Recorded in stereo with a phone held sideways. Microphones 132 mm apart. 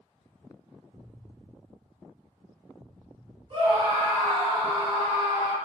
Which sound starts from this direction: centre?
An explosion, at 0.9 s.